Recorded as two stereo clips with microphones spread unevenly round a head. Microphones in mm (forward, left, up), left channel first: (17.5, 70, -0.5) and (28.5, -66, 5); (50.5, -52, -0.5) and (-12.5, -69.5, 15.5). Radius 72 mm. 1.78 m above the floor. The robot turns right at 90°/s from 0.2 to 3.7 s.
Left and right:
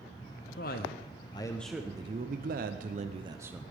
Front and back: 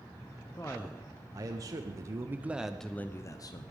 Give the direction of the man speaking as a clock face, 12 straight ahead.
9 o'clock.